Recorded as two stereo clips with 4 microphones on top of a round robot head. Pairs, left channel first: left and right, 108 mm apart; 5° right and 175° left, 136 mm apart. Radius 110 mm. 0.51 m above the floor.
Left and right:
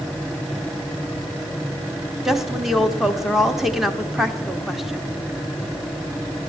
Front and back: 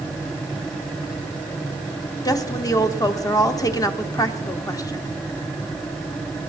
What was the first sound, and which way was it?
A woman speaking, 5° right.